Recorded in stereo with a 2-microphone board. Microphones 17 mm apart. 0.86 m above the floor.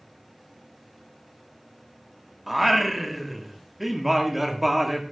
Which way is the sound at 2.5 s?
5° right (ahead or behind).